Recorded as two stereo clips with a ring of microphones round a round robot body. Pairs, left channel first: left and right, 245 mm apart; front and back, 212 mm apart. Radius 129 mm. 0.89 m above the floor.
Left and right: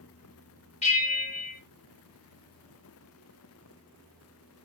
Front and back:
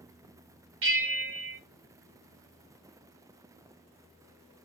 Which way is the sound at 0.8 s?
155° left.